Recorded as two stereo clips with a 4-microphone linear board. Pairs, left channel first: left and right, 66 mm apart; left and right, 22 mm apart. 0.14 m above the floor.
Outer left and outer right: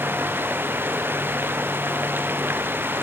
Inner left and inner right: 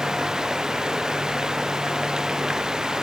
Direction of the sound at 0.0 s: 35° right (ahead or behind).